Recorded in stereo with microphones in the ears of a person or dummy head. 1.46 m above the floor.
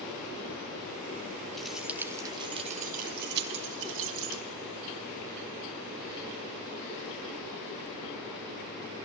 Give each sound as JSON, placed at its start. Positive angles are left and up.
{"t": 1.6, "sound": "keys jangling", "side_deg": 0, "distance_m": 2.0}